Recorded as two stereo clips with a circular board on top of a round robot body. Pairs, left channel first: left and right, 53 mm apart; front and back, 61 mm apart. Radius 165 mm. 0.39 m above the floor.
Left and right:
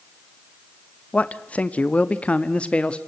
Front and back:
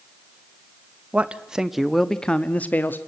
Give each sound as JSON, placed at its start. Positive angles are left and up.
{"t": 1.1, "sound": "a man speaking", "azimuth_deg": 130, "distance_m": 1.5}